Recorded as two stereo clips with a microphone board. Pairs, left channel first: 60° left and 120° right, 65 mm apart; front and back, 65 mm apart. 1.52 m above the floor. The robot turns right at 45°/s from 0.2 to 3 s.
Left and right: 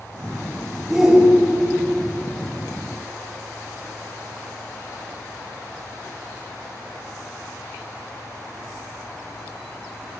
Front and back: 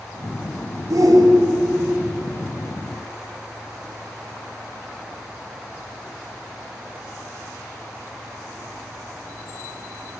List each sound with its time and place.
0.9 s a shout: 150° left, 2.5 m; by 1.8 s 165° right, 2.5 m